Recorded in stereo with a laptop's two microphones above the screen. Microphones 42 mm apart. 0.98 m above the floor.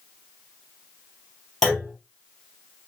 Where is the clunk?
5° left (ahead or behind), 3.5 m.